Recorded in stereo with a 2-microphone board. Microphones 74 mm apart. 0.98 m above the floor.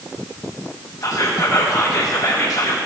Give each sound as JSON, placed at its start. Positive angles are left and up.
{"t": 1.0, "sound": "whispering", "side_deg": 55, "distance_m": 0.7}